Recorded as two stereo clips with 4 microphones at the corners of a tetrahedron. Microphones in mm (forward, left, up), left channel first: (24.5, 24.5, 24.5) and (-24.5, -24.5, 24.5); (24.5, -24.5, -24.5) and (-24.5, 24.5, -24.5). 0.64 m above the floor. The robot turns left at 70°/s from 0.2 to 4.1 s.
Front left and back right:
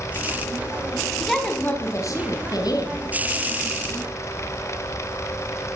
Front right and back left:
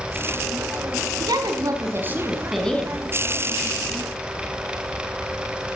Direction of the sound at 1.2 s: 140° left.